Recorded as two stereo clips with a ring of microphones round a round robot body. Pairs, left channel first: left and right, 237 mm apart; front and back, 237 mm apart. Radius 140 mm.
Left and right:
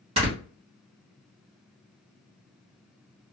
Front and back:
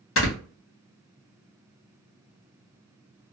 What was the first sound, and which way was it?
Snoring, 25° right.